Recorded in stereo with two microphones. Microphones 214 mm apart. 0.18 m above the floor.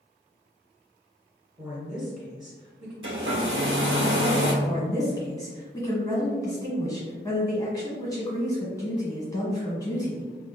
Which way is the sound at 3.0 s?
75° right (ahead or behind).